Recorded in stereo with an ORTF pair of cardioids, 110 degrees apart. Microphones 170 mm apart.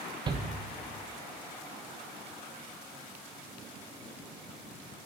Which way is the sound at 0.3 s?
25° right.